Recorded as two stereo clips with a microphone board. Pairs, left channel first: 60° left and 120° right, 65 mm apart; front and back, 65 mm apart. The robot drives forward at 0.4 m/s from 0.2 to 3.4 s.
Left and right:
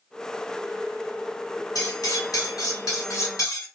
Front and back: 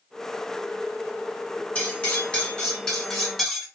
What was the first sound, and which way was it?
Cutlery clinking, 65° left.